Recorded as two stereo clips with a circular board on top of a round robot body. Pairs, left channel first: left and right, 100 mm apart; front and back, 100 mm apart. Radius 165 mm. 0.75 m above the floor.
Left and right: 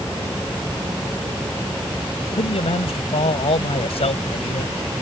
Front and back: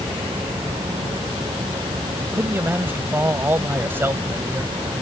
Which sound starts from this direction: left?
A man speaking, at 2.3 s.